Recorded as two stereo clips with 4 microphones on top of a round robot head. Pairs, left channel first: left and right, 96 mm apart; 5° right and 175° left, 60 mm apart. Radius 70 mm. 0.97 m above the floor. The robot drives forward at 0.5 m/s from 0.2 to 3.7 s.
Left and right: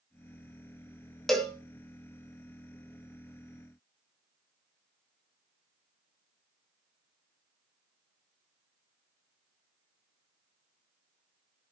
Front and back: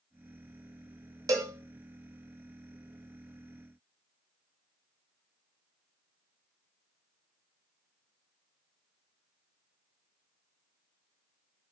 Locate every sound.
1.3 s a cowbell: 175° left, 1.6 m